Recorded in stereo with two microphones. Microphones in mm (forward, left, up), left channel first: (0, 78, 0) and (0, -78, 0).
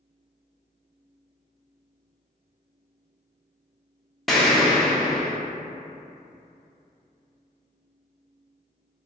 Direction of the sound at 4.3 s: Centre (ahead or behind).